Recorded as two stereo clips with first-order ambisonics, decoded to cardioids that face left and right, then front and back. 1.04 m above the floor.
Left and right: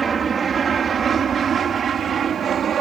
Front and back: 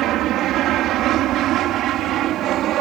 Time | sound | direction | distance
0.0 | an aircraft | 155° right | ?